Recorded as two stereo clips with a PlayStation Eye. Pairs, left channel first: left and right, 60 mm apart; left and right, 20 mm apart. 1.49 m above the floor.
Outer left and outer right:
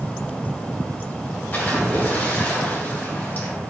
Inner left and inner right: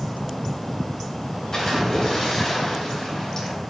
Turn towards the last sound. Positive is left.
turn(degrees=30)  # may be behind; listen again after turning